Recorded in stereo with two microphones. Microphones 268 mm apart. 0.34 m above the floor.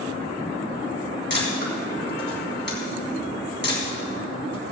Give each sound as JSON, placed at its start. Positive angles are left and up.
{"t": 1.3, "sound": "a camera shutter", "side_deg": 45, "distance_m": 3.5}